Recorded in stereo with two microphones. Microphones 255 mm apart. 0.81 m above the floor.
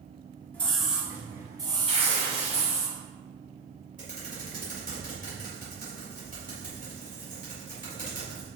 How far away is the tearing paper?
About 3 m.